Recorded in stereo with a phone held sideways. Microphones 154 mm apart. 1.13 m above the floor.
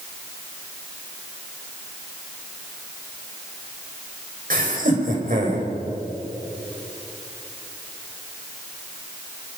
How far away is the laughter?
About 6 m.